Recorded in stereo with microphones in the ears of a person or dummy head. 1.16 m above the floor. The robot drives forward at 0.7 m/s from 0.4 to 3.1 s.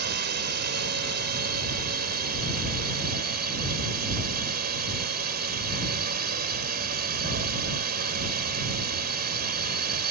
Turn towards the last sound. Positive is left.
turn(degrees=-45)  # may be behind; listen again after turning